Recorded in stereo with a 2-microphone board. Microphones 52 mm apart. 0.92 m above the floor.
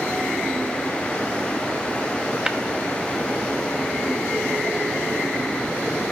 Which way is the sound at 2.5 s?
15° right (ahead or behind).